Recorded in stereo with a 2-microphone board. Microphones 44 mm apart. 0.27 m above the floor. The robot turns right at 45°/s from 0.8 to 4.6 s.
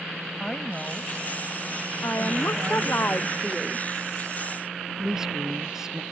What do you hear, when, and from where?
0.4 s a woman speaking: 20° left (ahead or behind); by 3.0 s 35° right (ahead or behind)
2.0 s a woman speaking: 85° left; by 3.9 s 165° left
5.0 s a woman speaking: 10° right (ahead or behind)